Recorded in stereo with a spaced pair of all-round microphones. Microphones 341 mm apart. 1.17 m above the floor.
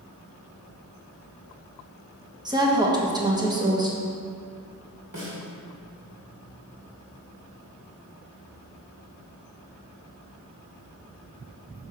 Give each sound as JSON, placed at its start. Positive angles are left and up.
{"t": 2.5, "sound": "a woman speaking", "side_deg": -10, "distance_m": 1.4}
{"t": 5.1, "sound": "a snare drum", "side_deg": -85, "distance_m": 2.5}